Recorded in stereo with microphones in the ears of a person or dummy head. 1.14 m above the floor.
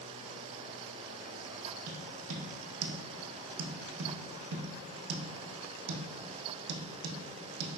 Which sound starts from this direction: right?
Tapping, at 1.9 s.